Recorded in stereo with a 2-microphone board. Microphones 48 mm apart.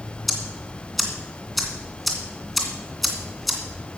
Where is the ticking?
Centre (ahead or behind), 2.5 m.